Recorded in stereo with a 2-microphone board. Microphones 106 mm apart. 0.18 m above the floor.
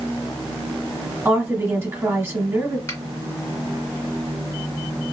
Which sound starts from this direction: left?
A finger snap, at 2.9 s.